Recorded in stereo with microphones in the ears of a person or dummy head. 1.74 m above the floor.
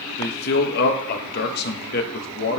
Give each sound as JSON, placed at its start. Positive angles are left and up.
{"t": 0.2, "sound": "a man speaking", "side_deg": 55, "distance_m": 0.9}